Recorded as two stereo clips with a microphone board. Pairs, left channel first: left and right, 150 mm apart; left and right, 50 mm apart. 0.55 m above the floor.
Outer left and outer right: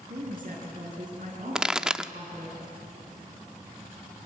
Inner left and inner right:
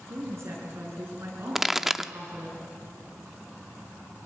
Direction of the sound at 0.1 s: 60° right (ahead or behind).